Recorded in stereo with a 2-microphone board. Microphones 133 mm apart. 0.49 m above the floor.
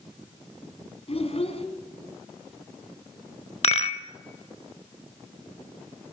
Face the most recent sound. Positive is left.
turn(degrees=50)  # may be behind; listen again after turning